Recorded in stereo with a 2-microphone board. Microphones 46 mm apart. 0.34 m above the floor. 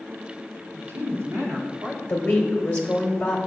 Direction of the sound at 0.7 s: 65° right (ahead or behind).